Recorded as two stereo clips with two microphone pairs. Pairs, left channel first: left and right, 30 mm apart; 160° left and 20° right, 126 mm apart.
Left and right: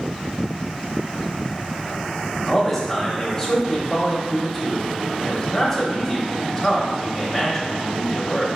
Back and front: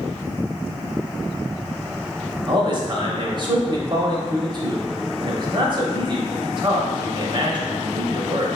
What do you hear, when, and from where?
2.5 s a man speaking: 15° left, 0.9 m